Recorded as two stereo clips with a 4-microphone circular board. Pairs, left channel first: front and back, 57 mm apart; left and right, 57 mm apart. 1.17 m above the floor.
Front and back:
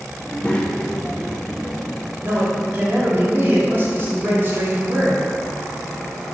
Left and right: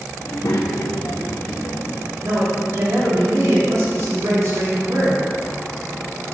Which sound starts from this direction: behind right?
A man speaking, at 2.2 s.